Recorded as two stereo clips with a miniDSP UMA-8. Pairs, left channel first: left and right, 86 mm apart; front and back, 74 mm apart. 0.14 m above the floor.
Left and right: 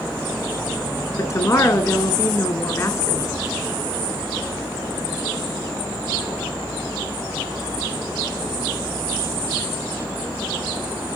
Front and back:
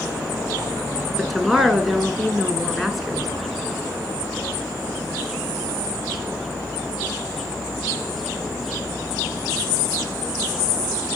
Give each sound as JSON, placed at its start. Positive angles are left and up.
{"t": 1.2, "sound": "a woman speaking", "azimuth_deg": 95, "distance_m": 1.6}